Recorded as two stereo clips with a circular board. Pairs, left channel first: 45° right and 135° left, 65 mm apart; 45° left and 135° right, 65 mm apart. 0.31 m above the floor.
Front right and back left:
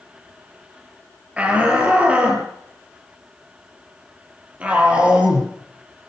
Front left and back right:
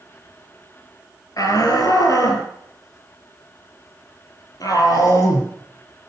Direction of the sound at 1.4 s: 65° left.